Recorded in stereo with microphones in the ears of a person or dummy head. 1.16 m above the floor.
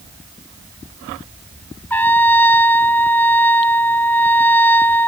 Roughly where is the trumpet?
Centre.